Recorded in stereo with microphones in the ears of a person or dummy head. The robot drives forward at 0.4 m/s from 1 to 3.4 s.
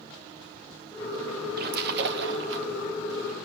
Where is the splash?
55° right (ahead or behind), 1.2 m; by 2.7 s 70° right (ahead or behind), 1.0 m.